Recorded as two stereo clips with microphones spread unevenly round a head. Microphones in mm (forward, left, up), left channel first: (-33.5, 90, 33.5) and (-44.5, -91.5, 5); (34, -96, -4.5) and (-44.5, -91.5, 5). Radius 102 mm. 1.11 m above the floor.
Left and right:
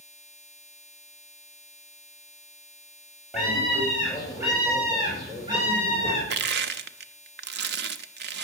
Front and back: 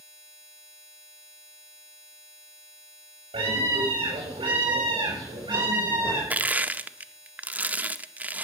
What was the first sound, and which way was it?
A scream, straight behind.